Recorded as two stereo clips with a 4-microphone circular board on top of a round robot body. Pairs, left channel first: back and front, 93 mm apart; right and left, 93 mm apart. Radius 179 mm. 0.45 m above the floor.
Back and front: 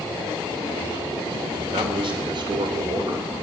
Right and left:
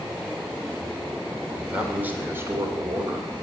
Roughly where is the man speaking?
Ahead.